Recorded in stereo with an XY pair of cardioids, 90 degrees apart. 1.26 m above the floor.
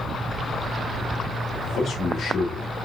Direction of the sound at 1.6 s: 65° left.